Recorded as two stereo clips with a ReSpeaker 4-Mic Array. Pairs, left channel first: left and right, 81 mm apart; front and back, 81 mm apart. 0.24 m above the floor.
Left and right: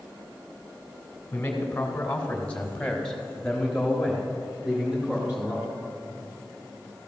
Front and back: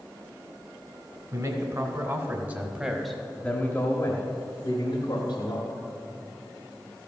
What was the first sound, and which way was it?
A man speaking, 155° left.